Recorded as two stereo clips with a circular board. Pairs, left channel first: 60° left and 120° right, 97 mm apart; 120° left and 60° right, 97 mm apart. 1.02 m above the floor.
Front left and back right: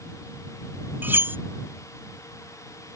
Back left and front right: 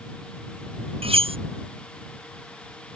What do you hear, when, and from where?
1.0 s cutlery clinking: 50° right